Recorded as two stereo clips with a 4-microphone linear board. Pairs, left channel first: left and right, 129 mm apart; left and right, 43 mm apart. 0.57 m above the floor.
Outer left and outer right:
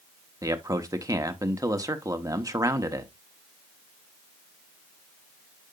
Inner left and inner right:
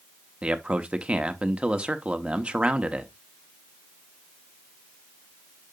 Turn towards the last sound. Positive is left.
turn(degrees=-25)  # may be behind; listen again after turning